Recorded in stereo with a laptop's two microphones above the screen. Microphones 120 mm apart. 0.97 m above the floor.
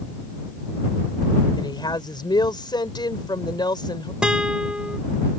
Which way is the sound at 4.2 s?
10° right (ahead or behind).